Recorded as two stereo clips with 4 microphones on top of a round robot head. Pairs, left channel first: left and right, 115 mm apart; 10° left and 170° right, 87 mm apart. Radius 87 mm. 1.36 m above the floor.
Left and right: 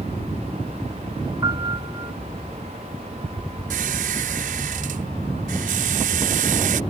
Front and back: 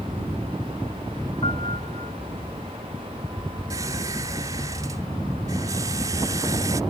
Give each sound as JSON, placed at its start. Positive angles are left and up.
{"t": 1.4, "sound": "a piano", "azimuth_deg": -40}
{"t": 3.7, "sound": "a squeak", "azimuth_deg": -105}